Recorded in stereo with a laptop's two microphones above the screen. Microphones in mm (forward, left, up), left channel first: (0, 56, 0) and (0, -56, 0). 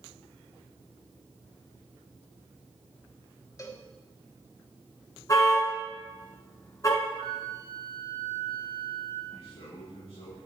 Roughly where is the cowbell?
Left.